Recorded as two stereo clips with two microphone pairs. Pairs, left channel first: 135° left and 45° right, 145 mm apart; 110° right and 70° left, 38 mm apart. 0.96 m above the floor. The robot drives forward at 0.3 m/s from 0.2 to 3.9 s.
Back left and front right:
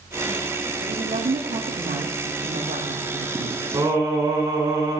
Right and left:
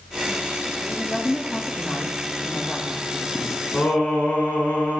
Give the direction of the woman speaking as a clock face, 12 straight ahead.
1 o'clock.